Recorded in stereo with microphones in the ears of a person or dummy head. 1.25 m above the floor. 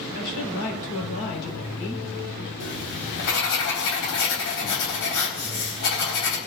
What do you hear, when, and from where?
0.1 s a woman speaking: 65° left (ahead or behind), 4 m
2.6 s writing: 70° left (ahead or behind), 4 m